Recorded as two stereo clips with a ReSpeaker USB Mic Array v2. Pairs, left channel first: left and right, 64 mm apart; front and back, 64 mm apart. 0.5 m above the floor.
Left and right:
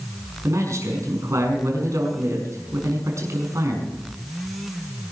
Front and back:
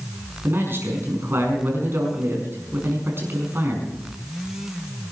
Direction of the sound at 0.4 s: 125° right.